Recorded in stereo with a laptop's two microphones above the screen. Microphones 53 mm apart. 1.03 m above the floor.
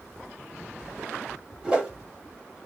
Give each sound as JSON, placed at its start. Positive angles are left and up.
{"t": 1.6, "sound": "a whoosh", "side_deg": -15, "distance_m": 0.9}